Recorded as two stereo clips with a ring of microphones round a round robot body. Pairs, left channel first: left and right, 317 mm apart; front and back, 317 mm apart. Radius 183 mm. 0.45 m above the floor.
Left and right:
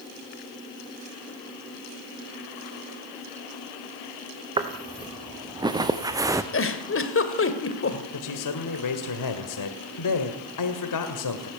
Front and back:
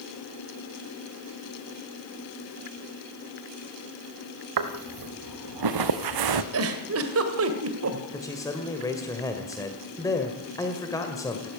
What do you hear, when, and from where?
4.6 s footsteps: 165° right, 3 m; by 6.4 s 170° right, 1.5 m
6.5 s a giggle: 135° left, 2 m
8.1 s a man speaking: 80° left, 1.9 m